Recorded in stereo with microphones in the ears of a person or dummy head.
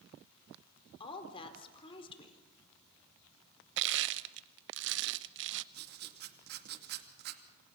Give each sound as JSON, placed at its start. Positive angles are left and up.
{"t": 1.0, "sound": "a woman speaking", "side_deg": 30, "distance_m": 4.0}
{"t": 3.8, "sound": "crushing", "side_deg": -55, "distance_m": 0.7}
{"t": 5.7, "sound": "writing", "side_deg": -55, "distance_m": 2.5}